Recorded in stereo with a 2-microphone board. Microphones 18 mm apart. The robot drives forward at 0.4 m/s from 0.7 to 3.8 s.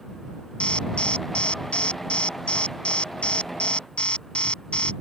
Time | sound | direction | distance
0.6 | an alarm | 80° left | ?